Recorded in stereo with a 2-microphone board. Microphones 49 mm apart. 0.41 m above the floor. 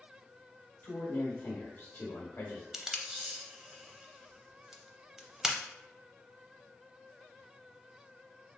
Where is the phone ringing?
I don't hear a phone ringing.